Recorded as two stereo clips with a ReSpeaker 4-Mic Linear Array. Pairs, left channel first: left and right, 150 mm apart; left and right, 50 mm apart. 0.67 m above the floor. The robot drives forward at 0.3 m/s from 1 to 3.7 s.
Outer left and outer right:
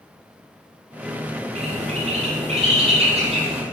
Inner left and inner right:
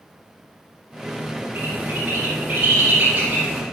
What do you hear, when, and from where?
1.6 s a bird: 50° right (ahead or behind), 3.5 m; by 3.6 s 40° right (ahead or behind), 4 m